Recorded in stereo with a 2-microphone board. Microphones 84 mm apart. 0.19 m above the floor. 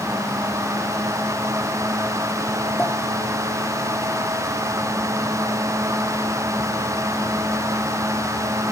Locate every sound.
2.8 s a pop: 25° left (ahead or behind), 3.5 m